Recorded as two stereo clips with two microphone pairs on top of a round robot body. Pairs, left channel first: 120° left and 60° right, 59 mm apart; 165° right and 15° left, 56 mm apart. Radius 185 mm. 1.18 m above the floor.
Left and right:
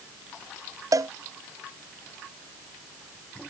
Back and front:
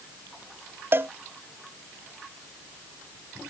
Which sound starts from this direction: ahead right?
A cowbell, at 0.9 s.